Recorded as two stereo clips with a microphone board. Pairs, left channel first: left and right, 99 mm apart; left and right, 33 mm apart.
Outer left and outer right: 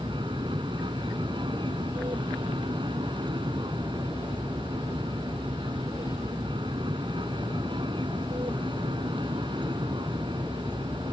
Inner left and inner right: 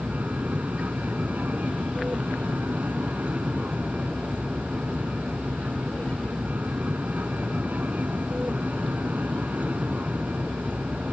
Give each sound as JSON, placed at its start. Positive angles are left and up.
{"t": 0.0, "sound": "an aircraft", "side_deg": -55}